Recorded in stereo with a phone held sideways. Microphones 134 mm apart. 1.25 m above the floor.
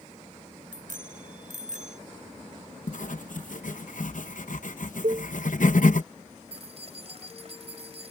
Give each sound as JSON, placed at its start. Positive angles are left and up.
{"t": 0.7, "sound": "a bicycle bell", "side_deg": -80}
{"t": 2.9, "sound": "writing", "side_deg": 70}
{"t": 5.0, "sound": "a cowbell", "side_deg": -50}
{"t": 6.5, "sound": "keys jangling", "side_deg": -50}